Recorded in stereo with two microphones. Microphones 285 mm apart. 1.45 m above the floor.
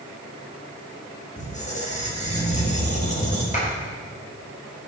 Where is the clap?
25° left (ahead or behind), 4.5 m.